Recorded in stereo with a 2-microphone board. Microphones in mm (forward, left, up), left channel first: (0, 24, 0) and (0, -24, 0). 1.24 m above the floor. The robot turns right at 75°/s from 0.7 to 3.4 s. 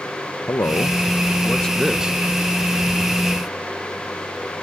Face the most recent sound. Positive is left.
turn(degrees=-65)